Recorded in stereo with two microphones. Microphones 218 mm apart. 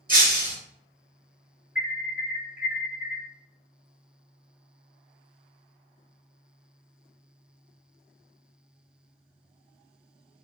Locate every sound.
0.1 s breaking glass: 40° right (ahead or behind), 1.0 m
1.8 s an alarm: 45° left (ahead or behind), 1.0 m